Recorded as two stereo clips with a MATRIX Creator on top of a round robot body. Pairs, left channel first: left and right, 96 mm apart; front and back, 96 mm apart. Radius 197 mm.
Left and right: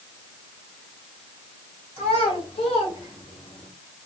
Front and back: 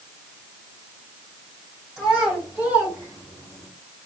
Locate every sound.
2.0 s a child speaking: 95° left, 3.5 m; by 3.7 s 125° left, 2.5 m